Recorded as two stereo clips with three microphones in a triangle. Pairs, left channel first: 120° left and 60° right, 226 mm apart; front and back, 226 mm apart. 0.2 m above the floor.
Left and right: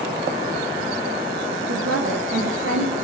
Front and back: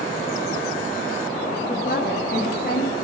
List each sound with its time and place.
1.7 s a woman speaking: 50° right, 8 m